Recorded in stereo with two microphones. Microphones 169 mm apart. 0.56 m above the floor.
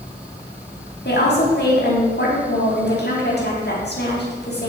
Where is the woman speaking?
75° left (ahead or behind), 4.5 m.